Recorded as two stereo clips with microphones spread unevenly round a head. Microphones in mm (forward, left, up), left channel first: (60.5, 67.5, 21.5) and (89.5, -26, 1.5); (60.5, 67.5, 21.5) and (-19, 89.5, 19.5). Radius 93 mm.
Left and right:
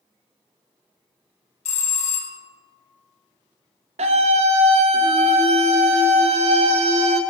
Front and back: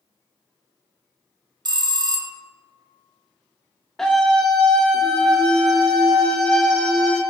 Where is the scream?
100° right, 0.7 m.